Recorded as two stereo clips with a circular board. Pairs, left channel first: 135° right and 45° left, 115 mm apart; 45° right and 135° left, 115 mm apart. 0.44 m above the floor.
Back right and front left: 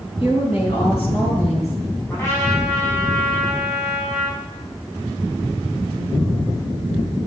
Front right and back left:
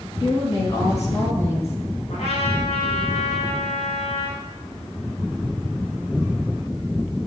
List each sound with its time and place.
0.2 s a woman speaking: 100° right, 5 m; by 2.0 s 110° right, 6 m
2.1 s a trumpet: 70° right, 7 m